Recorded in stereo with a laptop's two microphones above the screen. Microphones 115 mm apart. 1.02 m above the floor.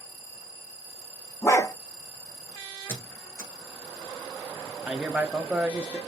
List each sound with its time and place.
1.4 s a dog barking: 25° left (ahead or behind), 0.7 m
2.9 s a squeak: 25° left (ahead or behind), 1.1 m
4.9 s a man speaking: 10° right (ahead or behind), 0.7 m